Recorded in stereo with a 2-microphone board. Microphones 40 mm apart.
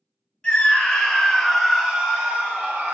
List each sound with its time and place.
0.4 s a scream: 25° left (ahead or behind), 1.2 m; by 2.9 s 35° right (ahead or behind), 1.1 m